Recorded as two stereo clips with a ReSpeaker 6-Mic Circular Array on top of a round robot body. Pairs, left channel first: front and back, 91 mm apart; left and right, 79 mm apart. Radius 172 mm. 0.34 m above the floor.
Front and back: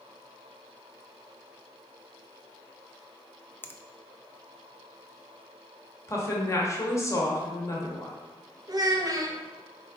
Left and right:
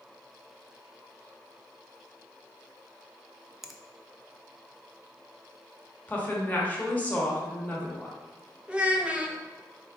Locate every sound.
3.6 s a finger snap: 10° right, 0.6 m
6.1 s a woman speaking: 35° left, 1.3 m
8.7 s a child speaking: 160° right, 0.9 m